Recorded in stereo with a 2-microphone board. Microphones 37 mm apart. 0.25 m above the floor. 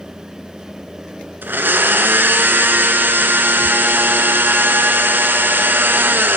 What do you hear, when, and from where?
1.4 s a blender: 65° right (ahead or behind), 0.9 m